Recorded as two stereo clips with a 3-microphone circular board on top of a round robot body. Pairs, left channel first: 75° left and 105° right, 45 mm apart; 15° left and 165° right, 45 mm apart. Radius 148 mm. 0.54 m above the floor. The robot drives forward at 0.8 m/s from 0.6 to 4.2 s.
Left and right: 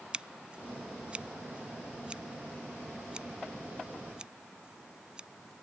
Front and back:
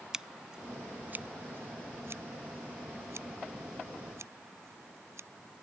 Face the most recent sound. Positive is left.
turn(degrees=-175)